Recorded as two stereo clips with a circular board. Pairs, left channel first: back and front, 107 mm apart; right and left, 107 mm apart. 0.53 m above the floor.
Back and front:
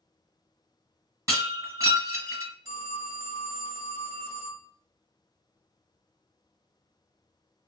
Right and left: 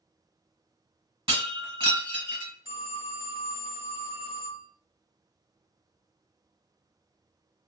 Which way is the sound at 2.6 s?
55° left.